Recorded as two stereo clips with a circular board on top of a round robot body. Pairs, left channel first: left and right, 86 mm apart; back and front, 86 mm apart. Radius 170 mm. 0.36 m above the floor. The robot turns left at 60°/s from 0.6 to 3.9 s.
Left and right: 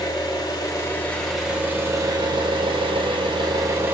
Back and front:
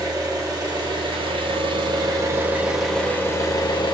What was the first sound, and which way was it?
An engine running, 45° left.